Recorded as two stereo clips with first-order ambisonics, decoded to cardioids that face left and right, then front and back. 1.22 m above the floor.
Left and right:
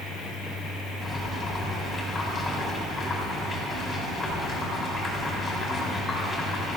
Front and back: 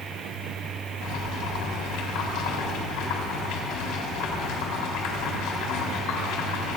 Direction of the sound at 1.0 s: 20° left.